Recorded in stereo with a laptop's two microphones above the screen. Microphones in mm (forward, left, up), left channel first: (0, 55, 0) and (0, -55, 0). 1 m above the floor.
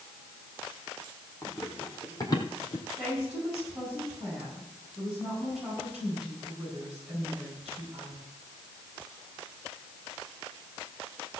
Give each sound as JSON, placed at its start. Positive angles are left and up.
{"t": 1.4, "sound": "running footsteps", "side_deg": 15, "distance_m": 3.0}
{"t": 3.0, "sound": "a woman speaking", "side_deg": -10, "distance_m": 8.0}